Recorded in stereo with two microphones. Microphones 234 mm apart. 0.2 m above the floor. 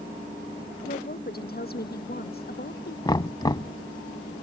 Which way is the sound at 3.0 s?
15° left (ahead or behind).